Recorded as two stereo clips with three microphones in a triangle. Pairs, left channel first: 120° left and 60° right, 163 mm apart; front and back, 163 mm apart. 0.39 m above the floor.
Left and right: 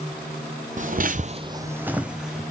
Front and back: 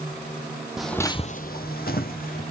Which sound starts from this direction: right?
Footsteps, at 0.8 s.